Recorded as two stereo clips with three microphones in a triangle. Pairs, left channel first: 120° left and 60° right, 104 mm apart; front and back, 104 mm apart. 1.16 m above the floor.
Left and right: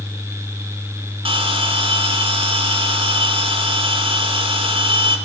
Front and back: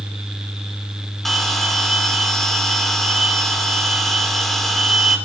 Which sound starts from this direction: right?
A bell, at 1.2 s.